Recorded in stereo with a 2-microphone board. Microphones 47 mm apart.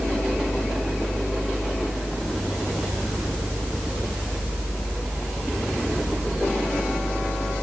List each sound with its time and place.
Only background noise.